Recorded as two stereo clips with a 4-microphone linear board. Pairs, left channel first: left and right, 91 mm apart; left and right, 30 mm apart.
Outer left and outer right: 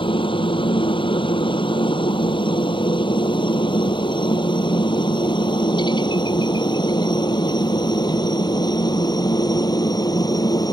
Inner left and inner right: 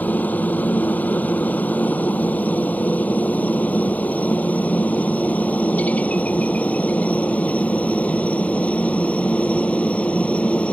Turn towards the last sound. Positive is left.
turn(degrees=45)  # may be behind; listen again after turning